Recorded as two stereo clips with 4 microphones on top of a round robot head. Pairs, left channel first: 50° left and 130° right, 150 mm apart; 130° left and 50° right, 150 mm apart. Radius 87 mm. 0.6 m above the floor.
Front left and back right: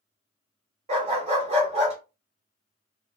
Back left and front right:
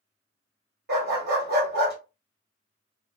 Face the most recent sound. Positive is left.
turn(degrees=-80)